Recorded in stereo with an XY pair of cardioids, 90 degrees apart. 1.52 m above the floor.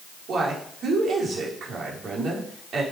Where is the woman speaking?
65° right, 4 m.